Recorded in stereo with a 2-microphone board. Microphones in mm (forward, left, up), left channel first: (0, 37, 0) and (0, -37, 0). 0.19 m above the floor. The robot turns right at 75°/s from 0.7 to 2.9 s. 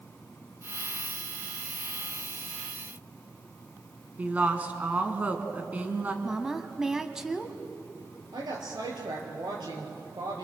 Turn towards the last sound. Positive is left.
turn(degrees=-75)  # may be behind; listen again after turning